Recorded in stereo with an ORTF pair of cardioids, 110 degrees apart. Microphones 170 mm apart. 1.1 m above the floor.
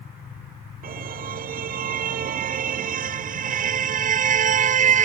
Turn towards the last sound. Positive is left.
turn(degrees=-45)